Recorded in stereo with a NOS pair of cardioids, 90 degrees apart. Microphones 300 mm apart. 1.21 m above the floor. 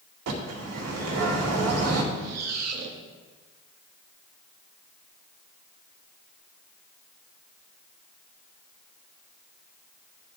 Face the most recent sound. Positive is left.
turn(degrees=-60)